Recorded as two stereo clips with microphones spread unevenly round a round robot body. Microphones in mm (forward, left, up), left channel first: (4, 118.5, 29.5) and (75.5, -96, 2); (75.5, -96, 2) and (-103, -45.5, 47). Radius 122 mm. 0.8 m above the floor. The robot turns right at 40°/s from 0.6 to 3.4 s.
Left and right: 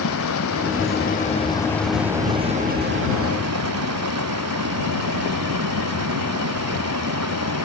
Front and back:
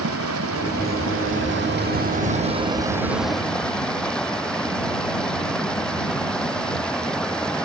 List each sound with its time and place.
0.0 s running water: 145° left; by 7.7 s 100° right